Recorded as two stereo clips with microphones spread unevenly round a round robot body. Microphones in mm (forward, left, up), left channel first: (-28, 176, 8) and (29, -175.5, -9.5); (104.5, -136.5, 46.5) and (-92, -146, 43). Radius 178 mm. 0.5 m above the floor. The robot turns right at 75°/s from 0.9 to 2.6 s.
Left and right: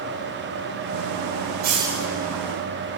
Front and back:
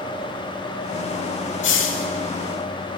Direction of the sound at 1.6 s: 15° right.